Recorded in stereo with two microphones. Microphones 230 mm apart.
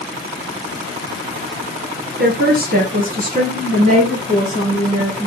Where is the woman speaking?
45° right (ahead or behind), 3 m; by 5.3 s 30° right (ahead or behind), 4 m.